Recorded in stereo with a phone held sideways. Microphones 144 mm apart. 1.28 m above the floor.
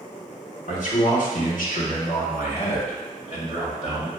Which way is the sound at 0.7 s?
60° left (ahead or behind).